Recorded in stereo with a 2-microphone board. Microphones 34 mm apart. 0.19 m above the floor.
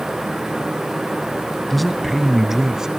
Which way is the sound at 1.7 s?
5° left (ahead or behind).